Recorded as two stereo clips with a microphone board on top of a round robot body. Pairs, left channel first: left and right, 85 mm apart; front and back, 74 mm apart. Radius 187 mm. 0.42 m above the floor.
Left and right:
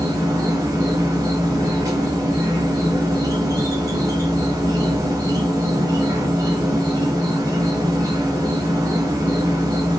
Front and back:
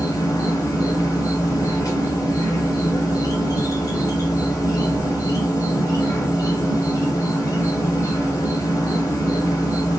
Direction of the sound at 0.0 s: 40° right.